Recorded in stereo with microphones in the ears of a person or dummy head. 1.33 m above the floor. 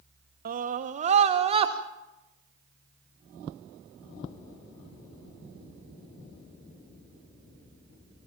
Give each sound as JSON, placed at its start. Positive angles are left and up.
{"t": 0.5, "sound": "a scream", "side_deg": -45, "distance_m": 1.0}